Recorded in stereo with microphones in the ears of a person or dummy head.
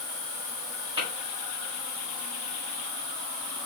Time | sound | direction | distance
1.0 | tapping | 30° right (ahead or behind) | 6 m